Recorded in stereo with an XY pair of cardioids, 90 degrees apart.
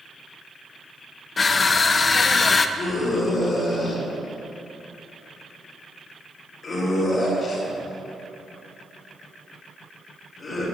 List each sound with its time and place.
1.4 s crushing: 40° left, 0.7 m
2.8 s a scream: 55° left, 4 m